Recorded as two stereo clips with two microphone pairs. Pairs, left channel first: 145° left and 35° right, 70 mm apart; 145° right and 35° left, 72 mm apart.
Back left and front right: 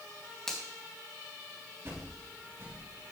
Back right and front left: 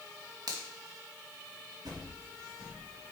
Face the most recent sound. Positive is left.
turn(degrees=20)